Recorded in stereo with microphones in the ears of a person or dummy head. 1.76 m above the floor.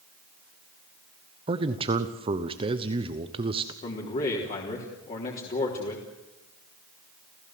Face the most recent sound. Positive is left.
turn(degrees=40)  # may be behind; listen again after turning